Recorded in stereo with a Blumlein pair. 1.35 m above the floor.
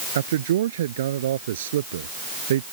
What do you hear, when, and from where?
0.1 s a man speaking: 60° right